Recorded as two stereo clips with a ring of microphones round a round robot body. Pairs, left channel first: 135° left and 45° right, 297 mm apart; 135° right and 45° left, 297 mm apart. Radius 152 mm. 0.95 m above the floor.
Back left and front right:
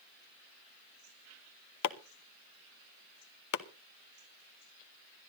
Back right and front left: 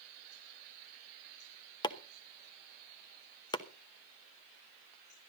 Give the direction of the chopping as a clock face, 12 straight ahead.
7 o'clock.